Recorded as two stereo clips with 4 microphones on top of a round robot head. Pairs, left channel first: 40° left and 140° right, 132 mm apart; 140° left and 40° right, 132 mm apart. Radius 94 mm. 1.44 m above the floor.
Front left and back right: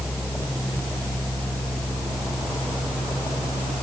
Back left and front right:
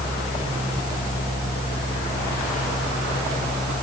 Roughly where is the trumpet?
No trumpet in this recording.